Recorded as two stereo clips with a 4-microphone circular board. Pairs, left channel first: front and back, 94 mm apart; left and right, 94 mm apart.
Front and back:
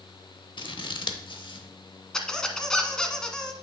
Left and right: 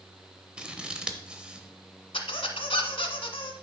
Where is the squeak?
80° left, 0.9 m.